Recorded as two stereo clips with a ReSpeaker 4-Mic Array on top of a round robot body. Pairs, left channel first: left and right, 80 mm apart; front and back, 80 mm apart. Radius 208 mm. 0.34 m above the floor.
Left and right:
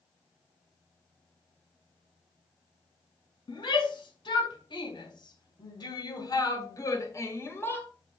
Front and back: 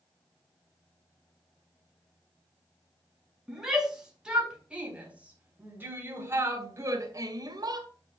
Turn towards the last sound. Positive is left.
turn(degrees=155)